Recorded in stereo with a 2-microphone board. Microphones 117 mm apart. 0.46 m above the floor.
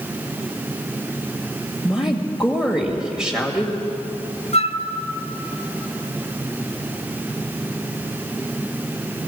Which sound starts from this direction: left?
A flute, at 4.5 s.